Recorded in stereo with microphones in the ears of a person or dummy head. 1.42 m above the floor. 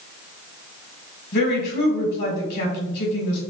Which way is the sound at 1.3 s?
55° left (ahead or behind).